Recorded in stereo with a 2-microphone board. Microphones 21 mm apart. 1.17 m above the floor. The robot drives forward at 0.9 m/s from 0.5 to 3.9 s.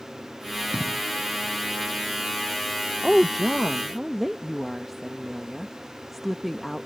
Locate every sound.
0.7 s an explosion: 65° right (ahead or behind); by 1.0 s 60° right (ahead or behind)
3.0 s a woman speaking: centre (ahead or behind)